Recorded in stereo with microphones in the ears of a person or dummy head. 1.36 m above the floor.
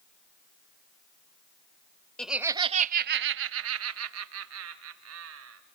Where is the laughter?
Centre (ahead or behind), 0.7 m; by 5.6 s 75° right (ahead or behind), 2.5 m.